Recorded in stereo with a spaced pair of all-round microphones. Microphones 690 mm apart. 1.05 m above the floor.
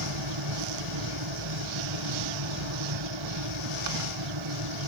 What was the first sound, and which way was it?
A fan, 40° right (ahead or behind).